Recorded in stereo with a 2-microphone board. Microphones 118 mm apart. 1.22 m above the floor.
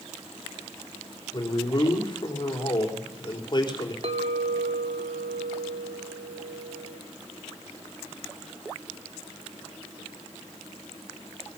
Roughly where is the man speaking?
Left.